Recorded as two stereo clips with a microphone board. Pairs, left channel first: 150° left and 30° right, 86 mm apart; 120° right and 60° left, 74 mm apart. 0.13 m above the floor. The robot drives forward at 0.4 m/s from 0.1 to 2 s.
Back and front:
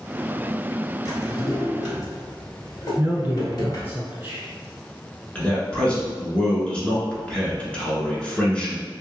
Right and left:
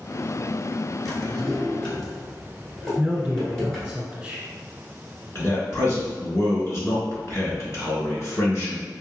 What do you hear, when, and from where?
1.1 s a drawer: 155° left, 1.1 m; by 4.0 s 160° left, 1.4 m
3.0 s a man speaking: straight ahead, 1.3 m
5.3 s a man speaking: 140° right, 1.3 m